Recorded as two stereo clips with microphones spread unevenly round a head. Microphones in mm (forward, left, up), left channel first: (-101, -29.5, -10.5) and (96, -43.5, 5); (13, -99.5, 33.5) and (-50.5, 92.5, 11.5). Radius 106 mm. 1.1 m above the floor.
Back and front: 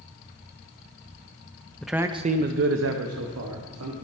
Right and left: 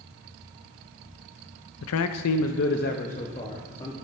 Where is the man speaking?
100° right, 0.7 m; by 4.0 s straight ahead, 1.8 m.